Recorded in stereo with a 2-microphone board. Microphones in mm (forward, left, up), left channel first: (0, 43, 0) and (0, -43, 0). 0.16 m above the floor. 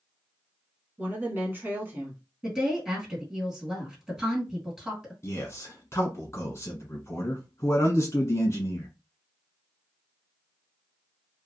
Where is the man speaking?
35° left (ahead or behind), 1.4 m.